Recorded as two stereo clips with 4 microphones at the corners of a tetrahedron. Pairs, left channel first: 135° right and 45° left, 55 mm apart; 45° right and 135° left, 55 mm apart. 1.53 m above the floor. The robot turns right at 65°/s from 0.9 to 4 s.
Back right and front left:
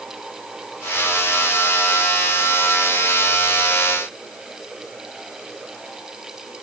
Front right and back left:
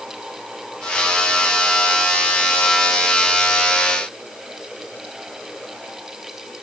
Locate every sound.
Only background noise.